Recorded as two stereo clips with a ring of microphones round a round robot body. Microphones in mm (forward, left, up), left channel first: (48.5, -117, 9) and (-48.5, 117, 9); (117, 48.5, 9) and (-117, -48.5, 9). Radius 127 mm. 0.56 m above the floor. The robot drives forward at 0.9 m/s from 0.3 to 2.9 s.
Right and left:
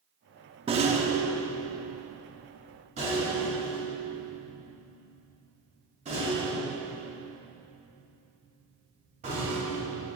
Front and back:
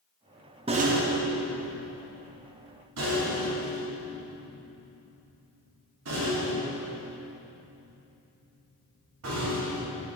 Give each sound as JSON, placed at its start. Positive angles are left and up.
{"t": 0.7, "sound": "a rattle", "azimuth_deg": 155, "distance_m": 0.6}